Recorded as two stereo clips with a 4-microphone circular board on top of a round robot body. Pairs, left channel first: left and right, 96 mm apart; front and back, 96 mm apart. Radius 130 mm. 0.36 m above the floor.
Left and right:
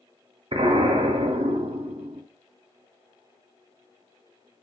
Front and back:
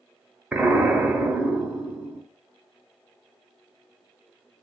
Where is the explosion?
105° right, 0.8 m.